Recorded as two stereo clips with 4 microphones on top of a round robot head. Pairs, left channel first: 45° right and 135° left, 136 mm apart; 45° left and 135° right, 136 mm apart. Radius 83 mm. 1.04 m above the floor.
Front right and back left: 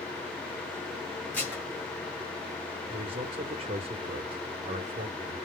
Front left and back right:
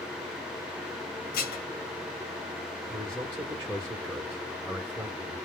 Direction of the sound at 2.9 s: 160° left.